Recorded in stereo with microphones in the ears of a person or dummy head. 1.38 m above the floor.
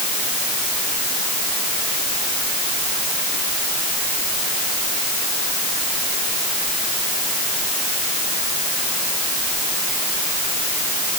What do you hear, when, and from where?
Only background noise.